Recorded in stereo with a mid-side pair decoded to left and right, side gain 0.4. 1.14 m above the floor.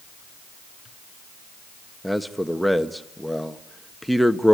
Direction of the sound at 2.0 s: Straight ahead.